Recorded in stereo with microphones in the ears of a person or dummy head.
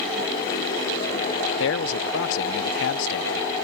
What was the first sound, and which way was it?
A man speaking, 65° left (ahead or behind).